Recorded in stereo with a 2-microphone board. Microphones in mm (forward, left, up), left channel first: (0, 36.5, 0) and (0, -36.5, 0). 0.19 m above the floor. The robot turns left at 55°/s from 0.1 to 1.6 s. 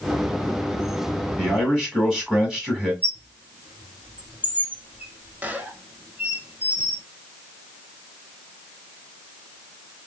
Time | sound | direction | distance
1.4 | a man speaking | 15° right (ahead or behind) | 1.7 m
3.0 | a squeak | 25° right (ahead or behind) | 0.6 m